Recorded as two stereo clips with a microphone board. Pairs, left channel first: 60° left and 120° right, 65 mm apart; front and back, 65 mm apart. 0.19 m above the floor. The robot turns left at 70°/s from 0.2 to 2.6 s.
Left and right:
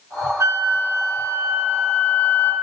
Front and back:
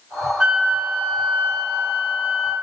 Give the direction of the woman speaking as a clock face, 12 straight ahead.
No woman speaking in this recording.